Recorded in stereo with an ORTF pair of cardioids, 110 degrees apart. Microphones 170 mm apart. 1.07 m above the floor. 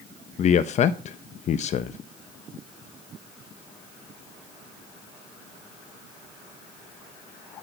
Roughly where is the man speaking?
Ahead left.